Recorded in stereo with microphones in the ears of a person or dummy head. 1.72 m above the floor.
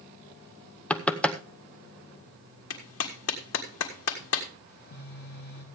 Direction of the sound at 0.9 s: 5° left (ahead or behind).